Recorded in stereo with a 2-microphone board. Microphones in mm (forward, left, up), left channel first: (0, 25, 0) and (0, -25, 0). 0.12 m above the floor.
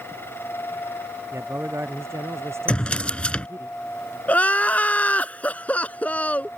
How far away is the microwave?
I don't hear a microwave.